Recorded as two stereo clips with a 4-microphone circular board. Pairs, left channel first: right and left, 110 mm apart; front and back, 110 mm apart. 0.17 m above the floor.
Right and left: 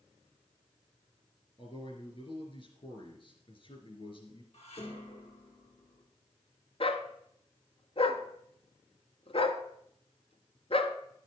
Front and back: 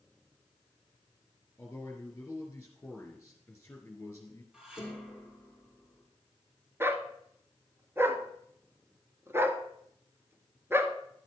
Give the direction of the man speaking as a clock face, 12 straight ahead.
2 o'clock.